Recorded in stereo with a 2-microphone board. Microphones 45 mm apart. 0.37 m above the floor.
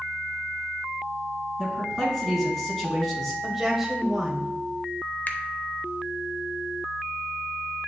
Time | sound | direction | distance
1.6 | a man speaking | 10° left (ahead or behind) | 3 m
3.4 | a woman speaking | 5° right (ahead or behind) | 1.8 m
5.3 | a finger snap | 45° left (ahead or behind) | 0.8 m